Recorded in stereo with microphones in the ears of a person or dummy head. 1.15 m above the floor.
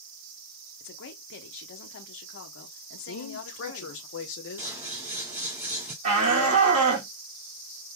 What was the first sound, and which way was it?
A woman speaking, 65° left (ahead or behind).